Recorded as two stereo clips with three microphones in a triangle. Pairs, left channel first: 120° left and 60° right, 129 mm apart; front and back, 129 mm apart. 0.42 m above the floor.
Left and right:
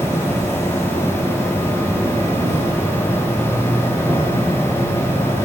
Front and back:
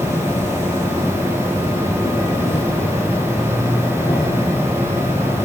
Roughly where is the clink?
I don't hear a clink.